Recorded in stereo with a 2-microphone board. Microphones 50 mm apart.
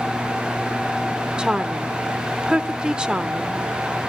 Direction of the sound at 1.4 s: 15° right (ahead or behind).